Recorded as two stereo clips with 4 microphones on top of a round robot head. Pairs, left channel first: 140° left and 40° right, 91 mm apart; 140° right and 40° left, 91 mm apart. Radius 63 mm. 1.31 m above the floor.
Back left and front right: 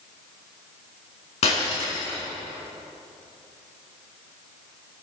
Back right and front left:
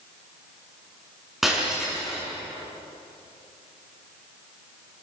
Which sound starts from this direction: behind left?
Breaking glass, at 1.4 s.